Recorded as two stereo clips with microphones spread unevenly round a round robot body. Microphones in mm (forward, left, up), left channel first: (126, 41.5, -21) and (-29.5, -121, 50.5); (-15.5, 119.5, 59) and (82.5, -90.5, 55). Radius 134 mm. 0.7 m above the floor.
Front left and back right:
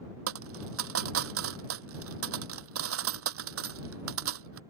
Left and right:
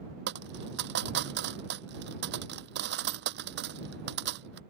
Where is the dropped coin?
120° right.